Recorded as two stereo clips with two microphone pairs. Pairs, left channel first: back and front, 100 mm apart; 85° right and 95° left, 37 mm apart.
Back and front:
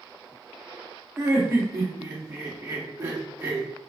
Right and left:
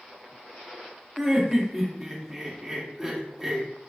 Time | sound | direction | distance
1.2 | laughter | 25° left | 1.0 m